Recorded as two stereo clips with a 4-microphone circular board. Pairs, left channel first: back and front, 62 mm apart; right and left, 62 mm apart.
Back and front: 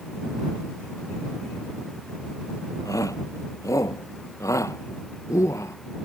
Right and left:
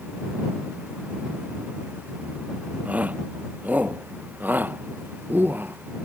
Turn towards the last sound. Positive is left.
turn(degrees=145)